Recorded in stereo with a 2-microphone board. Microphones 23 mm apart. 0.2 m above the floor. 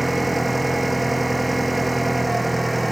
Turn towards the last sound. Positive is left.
turn(degrees=0)  # may be behind; listen again after turning